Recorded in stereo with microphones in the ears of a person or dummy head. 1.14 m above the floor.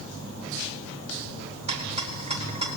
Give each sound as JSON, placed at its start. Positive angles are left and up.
{"t": 1.7, "sound": "a rattle", "side_deg": -35, "distance_m": 2.5}